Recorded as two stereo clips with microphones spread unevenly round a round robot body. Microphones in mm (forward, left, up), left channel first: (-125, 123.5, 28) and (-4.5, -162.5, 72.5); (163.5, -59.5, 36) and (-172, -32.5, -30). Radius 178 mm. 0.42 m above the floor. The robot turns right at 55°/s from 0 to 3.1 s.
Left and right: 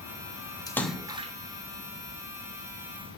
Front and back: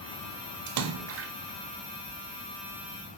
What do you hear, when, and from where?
0.7 s a splash: 175° right, 0.6 m; by 1.3 s 140° right, 0.6 m